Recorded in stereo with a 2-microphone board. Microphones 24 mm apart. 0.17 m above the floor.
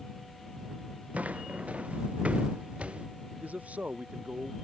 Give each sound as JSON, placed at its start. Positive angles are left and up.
{"t": 1.1, "sound": "footsteps", "side_deg": -65}
{"t": 3.4, "sound": "a man speaking", "side_deg": -70}